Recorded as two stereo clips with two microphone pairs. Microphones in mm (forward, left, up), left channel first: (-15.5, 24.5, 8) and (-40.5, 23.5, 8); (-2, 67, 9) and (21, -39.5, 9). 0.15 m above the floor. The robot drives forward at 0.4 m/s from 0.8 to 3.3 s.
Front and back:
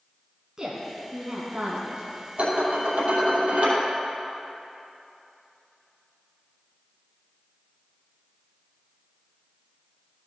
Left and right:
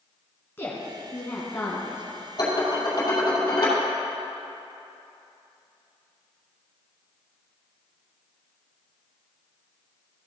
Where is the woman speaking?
145° left, 1.5 m; by 2.0 s 160° left, 1.8 m.